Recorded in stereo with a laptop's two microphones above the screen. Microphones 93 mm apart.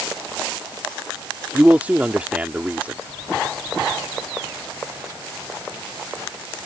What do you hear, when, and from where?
1.5 s a man speaking: 15° right (ahead or behind)